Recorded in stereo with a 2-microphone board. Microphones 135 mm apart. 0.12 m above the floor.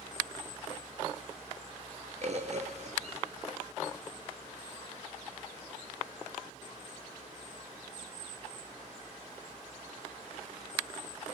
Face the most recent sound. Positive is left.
turn(degrees=-55)  # may be behind; listen again after turning